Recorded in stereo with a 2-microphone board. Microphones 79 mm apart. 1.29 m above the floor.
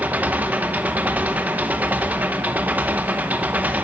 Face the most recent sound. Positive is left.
turn(degrees=-20)  # may be behind; listen again after turning